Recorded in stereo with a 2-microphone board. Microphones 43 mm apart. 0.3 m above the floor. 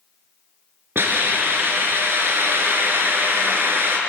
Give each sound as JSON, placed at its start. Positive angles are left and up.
{"t": 0.9, "sound": "a hiss", "side_deg": -55, "distance_m": 4.0}